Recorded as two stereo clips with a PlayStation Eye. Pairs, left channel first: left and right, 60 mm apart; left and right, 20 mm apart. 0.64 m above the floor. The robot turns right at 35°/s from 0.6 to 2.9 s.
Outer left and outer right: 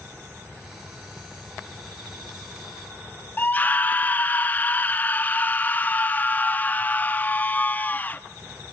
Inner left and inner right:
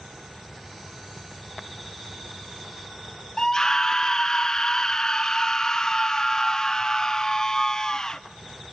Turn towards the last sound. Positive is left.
turn(degrees=30)  # may be behind; listen again after turning